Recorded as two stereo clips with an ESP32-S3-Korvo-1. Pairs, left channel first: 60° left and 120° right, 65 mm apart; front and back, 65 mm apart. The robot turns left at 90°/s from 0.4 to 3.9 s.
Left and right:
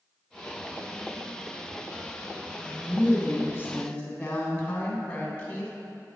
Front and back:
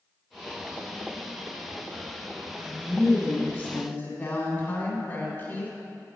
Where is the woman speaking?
125° left, 1.7 m; by 5.7 s 5° left, 1.7 m.